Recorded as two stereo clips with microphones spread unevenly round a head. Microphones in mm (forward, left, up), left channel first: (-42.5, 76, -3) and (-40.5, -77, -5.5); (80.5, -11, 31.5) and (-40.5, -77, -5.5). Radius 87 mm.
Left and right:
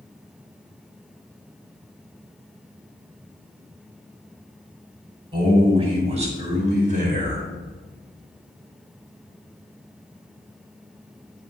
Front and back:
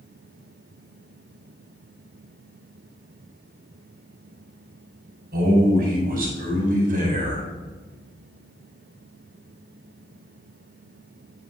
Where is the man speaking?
145° right, 4 m; by 7.5 s 120° right, 3.5 m.